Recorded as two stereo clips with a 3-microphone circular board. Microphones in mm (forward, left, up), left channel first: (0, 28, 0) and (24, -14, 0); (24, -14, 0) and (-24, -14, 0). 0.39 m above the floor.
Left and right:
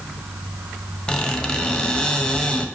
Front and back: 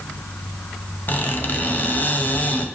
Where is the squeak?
45° left, 0.5 m.